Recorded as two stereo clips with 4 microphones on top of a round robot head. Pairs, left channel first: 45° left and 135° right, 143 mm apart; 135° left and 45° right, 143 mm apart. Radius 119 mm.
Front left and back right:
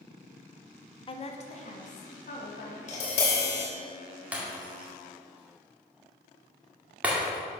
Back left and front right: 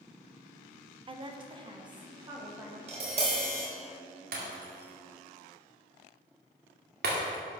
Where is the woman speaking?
Straight ahead, 1.1 m; by 2.8 s 15° left, 3.5 m.